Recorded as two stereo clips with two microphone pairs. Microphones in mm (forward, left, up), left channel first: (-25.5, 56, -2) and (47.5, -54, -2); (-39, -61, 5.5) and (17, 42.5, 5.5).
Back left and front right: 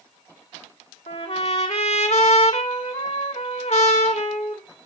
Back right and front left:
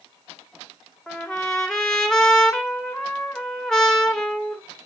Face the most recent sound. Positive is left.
turn(degrees=155)